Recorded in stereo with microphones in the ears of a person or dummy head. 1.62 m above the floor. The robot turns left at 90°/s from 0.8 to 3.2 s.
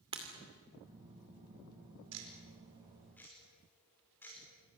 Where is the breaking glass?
25° right (ahead or behind), 2.5 m.